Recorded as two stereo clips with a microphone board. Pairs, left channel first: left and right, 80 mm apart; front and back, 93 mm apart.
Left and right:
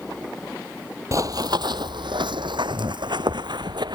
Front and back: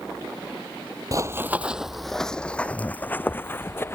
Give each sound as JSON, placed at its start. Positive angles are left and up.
{"t": 1.1, "sound": "running footsteps", "azimuth_deg": -135}